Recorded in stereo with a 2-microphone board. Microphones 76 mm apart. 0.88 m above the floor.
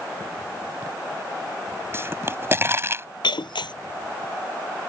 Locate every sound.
1.9 s a pop: 35° right (ahead or behind)
3.2 s breaking glass: 85° left